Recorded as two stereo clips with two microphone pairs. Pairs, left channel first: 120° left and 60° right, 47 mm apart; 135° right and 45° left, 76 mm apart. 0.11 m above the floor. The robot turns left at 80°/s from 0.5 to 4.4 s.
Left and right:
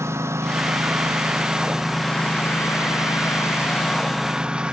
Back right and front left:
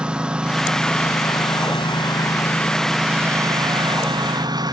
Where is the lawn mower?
35° right; by 4.7 s 15° left.